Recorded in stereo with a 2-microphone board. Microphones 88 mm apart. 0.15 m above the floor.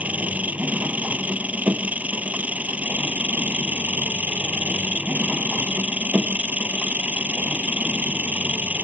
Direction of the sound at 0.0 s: 15° right (ahead or behind).